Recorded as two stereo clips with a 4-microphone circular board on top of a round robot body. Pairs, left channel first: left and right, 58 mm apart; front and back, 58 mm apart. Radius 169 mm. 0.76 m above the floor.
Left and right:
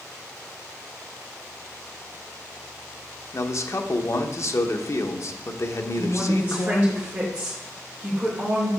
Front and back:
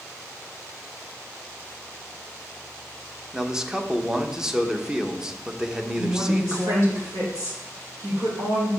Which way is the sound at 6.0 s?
155° right.